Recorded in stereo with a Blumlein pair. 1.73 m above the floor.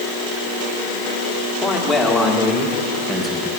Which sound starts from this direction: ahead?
A man speaking, at 1.6 s.